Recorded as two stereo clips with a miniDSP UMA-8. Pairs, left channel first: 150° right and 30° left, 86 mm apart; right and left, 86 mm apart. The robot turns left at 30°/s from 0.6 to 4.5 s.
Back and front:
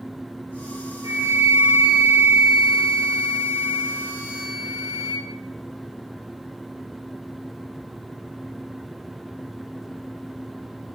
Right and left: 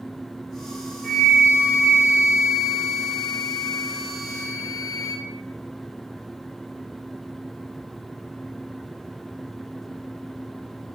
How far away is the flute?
About 0.9 m.